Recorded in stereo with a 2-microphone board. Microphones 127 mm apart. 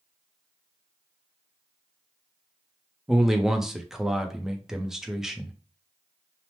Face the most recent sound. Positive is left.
turn(degrees=-5)  # may be behind; listen again after turning